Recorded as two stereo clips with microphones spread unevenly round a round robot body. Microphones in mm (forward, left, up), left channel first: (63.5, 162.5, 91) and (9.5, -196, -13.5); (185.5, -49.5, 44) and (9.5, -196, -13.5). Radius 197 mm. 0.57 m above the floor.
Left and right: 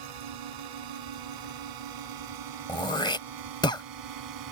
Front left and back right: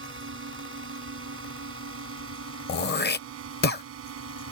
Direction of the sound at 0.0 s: 110° right.